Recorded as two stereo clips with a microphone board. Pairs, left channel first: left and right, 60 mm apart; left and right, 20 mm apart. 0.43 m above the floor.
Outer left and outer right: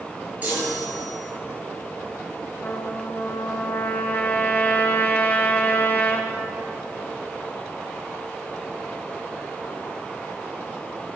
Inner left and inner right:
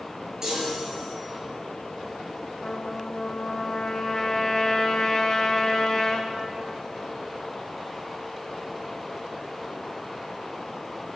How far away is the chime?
About 6 m.